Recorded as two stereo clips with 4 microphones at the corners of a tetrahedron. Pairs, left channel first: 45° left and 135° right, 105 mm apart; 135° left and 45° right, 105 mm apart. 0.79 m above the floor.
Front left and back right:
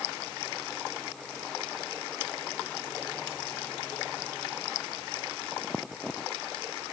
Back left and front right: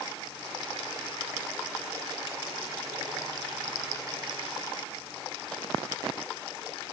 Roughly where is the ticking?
I don't hear ticking.